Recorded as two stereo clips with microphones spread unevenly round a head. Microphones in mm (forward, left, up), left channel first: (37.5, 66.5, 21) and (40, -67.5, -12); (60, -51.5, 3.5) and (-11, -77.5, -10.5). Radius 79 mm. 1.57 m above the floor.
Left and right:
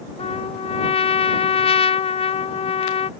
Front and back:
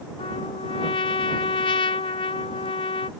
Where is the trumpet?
45° left.